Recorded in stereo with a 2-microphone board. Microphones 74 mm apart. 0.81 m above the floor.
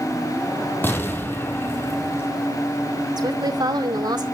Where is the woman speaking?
70° right (ahead or behind), 2.5 m.